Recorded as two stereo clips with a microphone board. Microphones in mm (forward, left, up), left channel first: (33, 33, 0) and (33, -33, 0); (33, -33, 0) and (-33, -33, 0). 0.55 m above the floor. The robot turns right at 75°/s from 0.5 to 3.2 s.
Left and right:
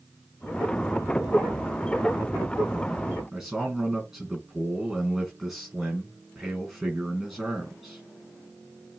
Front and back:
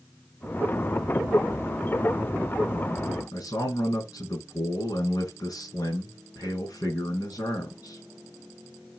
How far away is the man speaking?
About 4.5 m.